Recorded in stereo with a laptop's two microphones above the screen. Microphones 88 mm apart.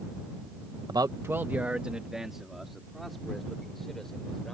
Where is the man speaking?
55° right (ahead or behind); by 4.5 s 5° left (ahead or behind).